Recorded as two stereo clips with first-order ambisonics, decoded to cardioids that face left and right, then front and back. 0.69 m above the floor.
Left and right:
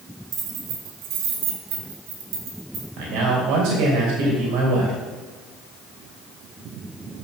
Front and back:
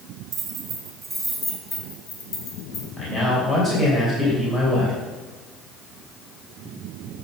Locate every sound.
0.3 s keys jangling: 130° right, 1.5 m; by 2.9 s 40° right, 2.5 m
3.0 s a man speaking: 70° right, 2.5 m